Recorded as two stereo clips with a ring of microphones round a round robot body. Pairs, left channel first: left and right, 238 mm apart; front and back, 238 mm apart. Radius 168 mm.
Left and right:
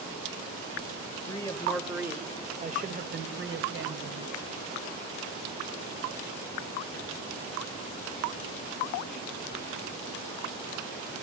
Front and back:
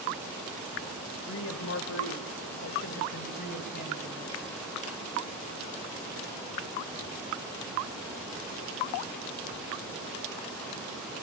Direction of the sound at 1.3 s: 20° left.